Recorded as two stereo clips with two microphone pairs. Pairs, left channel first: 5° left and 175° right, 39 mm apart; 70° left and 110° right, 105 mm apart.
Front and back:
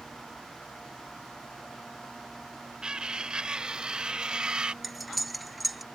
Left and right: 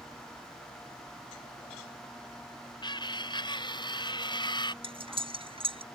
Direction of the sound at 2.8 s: 115° left.